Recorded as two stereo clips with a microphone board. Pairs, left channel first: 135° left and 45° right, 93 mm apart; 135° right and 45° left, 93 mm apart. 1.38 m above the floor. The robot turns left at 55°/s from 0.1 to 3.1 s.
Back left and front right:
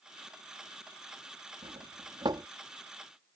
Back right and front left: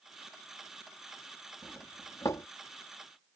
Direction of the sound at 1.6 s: 45° right.